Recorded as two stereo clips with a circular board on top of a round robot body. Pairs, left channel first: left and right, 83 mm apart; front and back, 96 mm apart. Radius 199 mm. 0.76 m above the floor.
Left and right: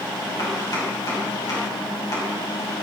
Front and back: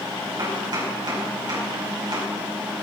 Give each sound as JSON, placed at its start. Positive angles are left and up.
{"t": 0.4, "sound": "chopping", "azimuth_deg": 135, "distance_m": 5.5}